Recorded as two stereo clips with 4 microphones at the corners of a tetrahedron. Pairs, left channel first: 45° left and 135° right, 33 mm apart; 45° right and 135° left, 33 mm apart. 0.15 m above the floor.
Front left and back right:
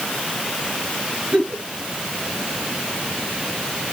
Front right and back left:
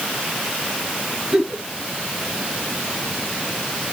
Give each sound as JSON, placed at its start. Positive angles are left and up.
{"t": 1.3, "sound": "a giggle", "azimuth_deg": -150, "distance_m": 2.0}